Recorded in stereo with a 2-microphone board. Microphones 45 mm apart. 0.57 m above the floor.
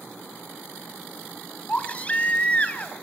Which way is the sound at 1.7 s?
30° left (ahead or behind).